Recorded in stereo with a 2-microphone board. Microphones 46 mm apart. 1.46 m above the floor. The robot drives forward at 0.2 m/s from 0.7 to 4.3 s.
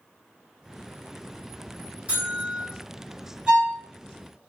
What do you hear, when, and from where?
2.1 s a buzzer: 30° right (ahead or behind), 2 m
3.5 s a violin: 15° right (ahead or behind), 2.0 m; by 3.8 s 10° right (ahead or behind), 2 m